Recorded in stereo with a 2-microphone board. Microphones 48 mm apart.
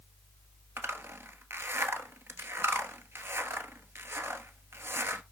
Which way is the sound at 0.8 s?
55° right (ahead or behind).